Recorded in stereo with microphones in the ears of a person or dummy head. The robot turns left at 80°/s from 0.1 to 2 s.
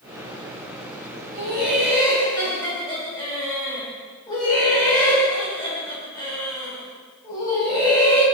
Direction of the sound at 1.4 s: 150° right.